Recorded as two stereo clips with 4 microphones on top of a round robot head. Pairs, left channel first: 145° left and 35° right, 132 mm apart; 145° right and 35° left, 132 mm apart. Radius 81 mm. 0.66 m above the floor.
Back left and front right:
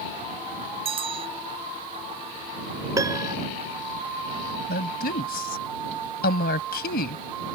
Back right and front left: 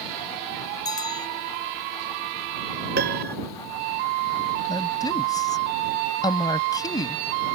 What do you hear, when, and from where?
0.8 s a bell: 85° right
3.0 s a piano: 35° left
4.7 s a woman speaking: 150° left